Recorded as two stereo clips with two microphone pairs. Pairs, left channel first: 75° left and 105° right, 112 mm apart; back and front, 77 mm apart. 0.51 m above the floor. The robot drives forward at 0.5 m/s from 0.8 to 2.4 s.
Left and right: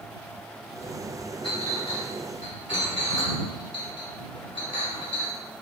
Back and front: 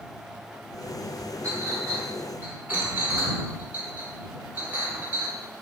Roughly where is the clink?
Ahead left.